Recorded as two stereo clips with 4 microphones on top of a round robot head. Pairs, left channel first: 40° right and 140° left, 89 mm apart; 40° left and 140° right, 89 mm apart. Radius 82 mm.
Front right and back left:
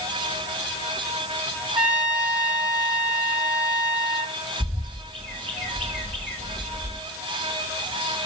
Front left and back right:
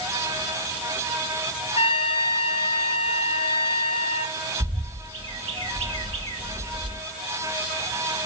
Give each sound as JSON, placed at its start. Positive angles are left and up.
{"t": 1.8, "sound": "a trumpet", "azimuth_deg": 60, "distance_m": 1.9}
{"t": 4.6, "sound": "a bird", "azimuth_deg": -125, "distance_m": 1.9}